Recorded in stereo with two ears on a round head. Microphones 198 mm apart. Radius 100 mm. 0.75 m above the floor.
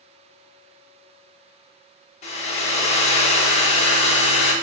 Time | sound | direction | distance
2.2 | a hair dryer | 30° left (ahead or behind) | 0.5 m